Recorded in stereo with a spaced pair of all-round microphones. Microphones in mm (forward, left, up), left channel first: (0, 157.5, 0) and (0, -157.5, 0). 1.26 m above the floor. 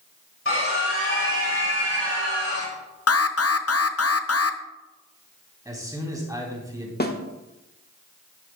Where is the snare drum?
30° left (ahead or behind), 1.1 m.